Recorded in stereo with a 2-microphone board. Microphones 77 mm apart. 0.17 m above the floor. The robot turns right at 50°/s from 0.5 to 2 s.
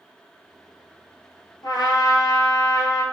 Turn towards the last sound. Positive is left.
turn(degrees=55)  # may be behind; listen again after turning